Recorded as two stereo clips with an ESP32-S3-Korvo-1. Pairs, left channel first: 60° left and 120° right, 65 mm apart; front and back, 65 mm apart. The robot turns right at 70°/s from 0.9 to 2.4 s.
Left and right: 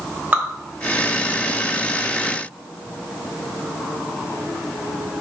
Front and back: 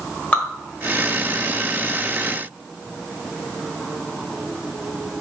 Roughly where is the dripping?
Ahead right.